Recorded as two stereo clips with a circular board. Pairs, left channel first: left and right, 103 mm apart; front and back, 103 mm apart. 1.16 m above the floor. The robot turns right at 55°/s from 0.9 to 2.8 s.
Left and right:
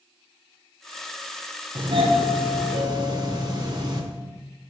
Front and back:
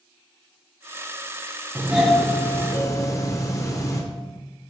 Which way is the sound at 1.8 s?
110° right.